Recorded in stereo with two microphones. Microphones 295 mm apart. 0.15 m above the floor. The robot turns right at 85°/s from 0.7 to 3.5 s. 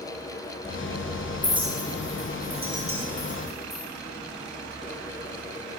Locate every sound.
1.4 s a clink: 5° right (ahead or behind), 2 m; by 3.8 s centre (ahead or behind), 2 m